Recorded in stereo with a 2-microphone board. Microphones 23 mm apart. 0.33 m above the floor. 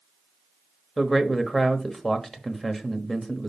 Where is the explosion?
I don't hear an explosion.